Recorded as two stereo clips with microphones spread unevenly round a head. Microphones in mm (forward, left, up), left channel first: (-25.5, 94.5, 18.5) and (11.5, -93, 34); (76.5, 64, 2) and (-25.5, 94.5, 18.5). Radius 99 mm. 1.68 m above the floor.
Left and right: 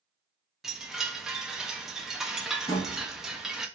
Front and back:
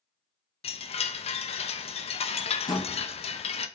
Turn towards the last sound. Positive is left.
turn(degrees=30)